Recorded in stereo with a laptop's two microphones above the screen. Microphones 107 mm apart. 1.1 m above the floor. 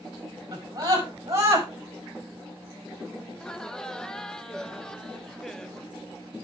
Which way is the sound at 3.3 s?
5° left (ahead or behind).